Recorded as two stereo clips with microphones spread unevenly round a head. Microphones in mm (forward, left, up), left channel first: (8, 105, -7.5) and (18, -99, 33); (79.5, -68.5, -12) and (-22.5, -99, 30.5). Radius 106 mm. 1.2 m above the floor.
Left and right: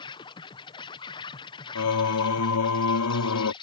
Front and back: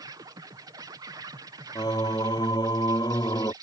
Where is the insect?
120° left.